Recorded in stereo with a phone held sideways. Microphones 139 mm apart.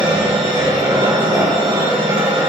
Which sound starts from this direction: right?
A machine running, at 0.0 s.